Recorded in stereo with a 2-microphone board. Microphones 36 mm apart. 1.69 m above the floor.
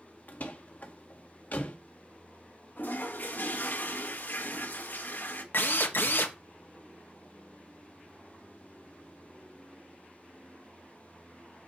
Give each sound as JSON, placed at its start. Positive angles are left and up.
{"t": 0.3, "sound": "a door slam", "side_deg": 55, "distance_m": 2.0}
{"t": 2.8, "sound": "a toilet flushing", "side_deg": 60, "distance_m": 1.6}
{"t": 5.5, "sound": "a drill", "side_deg": 75, "distance_m": 1.3}